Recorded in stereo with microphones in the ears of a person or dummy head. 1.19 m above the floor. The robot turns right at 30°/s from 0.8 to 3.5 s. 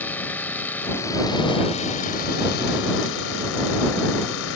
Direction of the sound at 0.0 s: 10° left.